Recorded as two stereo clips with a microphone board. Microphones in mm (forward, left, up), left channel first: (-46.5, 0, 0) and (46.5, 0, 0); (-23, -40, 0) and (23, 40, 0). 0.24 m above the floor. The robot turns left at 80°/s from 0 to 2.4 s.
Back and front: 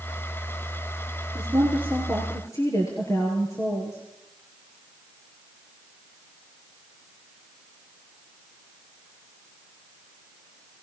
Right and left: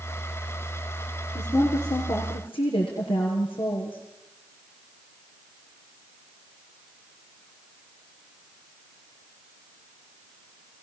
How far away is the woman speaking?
About 5 m.